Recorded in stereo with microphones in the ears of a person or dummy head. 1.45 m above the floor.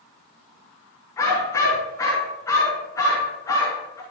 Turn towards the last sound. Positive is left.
turn(degrees=15)  # may be behind; listen again after turning